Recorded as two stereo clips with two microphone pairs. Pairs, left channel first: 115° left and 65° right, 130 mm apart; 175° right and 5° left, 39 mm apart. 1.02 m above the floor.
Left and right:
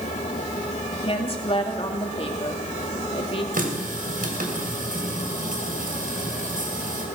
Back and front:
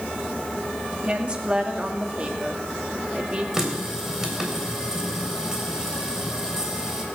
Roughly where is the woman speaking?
Left.